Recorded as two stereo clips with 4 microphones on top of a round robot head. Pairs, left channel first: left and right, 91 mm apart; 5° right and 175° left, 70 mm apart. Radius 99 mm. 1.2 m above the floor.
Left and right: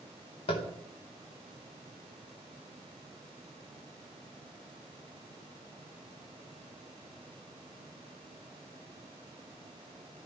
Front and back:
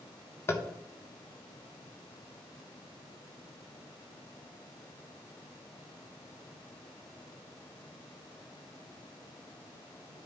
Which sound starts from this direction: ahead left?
Tapping, at 0.5 s.